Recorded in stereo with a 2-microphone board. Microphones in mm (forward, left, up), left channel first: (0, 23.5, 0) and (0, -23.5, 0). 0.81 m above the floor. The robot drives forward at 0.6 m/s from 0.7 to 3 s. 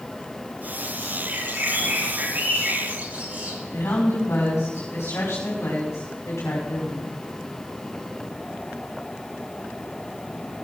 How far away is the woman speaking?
About 5 m.